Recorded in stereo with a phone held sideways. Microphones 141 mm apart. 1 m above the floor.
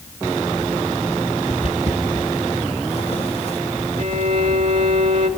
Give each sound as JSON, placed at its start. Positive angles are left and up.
{"t": 1.5, "sound": "footsteps", "side_deg": 50, "distance_m": 2.0}
{"t": 4.0, "sound": "a violin", "side_deg": -55, "distance_m": 2.5}